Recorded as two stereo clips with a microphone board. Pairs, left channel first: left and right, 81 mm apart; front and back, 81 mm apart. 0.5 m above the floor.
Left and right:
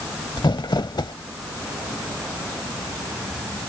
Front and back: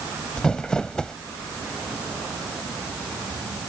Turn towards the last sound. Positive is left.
turn(degrees=80)